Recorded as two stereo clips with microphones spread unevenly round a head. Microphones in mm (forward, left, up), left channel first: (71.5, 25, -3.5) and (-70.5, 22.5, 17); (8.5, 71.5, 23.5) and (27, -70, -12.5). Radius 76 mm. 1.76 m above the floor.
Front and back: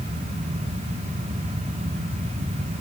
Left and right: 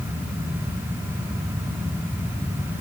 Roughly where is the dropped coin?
I don't hear a dropped coin.